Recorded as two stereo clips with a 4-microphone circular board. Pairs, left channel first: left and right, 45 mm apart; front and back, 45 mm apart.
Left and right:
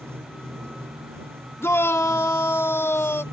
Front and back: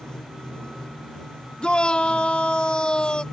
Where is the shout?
70° left.